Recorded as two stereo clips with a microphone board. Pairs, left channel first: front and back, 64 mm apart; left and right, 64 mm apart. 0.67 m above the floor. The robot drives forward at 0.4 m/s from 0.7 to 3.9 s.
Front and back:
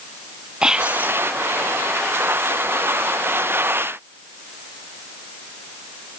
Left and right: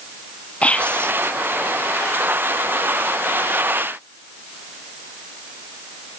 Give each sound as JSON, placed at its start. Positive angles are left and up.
{"t": 0.6, "sound": "whispering", "azimuth_deg": 120}